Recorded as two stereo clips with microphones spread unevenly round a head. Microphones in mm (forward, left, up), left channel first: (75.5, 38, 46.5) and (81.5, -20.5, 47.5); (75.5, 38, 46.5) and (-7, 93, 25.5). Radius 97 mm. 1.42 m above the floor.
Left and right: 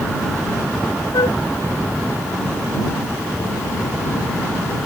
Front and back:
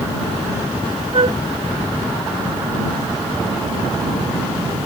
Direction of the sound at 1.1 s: 115° left.